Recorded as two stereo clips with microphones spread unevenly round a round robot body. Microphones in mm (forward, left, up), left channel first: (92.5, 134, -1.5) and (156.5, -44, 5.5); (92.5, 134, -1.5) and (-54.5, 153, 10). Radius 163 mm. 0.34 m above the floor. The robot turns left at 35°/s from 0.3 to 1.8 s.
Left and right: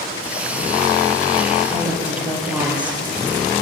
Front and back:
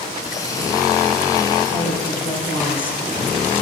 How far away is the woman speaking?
About 9 m.